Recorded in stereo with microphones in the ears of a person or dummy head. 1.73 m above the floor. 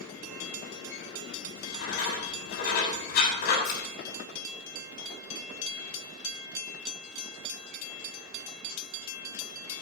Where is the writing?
65° left (ahead or behind), 7 m.